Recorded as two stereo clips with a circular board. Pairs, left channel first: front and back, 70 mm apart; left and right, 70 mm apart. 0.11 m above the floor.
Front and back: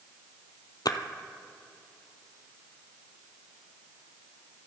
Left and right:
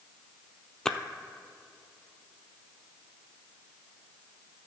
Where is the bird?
I don't hear a bird.